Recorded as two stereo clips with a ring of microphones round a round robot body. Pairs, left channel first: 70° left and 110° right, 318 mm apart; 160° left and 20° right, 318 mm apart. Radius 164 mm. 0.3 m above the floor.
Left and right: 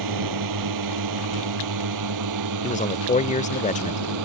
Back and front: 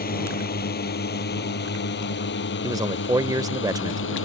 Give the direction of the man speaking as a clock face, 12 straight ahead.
11 o'clock.